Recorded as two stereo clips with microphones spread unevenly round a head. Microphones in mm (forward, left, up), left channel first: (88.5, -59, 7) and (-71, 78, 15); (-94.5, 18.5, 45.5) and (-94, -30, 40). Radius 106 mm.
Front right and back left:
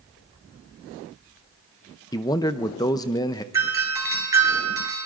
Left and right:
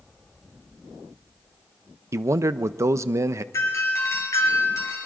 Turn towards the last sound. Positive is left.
turn(degrees=65)